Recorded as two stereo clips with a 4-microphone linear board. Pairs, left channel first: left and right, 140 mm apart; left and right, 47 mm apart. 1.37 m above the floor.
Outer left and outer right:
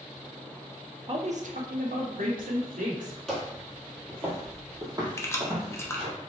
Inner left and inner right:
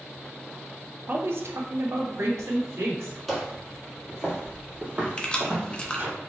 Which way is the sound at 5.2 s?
20° left (ahead or behind).